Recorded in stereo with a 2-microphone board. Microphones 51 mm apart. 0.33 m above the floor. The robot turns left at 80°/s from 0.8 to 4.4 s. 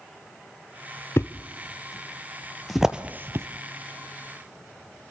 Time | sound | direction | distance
1.2 | a thud | 55° left (ahead or behind) | 0.9 m